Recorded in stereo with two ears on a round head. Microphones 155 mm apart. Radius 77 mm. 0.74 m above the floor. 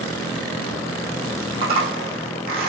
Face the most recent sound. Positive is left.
turn(degrees=-35)  # may be behind; listen again after turning